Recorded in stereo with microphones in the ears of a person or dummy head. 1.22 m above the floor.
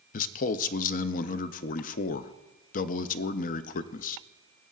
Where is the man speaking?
40° left (ahead or behind), 0.5 m.